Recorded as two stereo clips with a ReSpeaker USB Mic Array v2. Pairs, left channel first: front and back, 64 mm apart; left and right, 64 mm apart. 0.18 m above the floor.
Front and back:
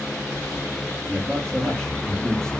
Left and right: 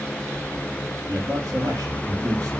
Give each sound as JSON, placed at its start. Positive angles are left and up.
{"t": 1.1, "sound": "a man speaking", "azimuth_deg": -85, "distance_m": 3.5}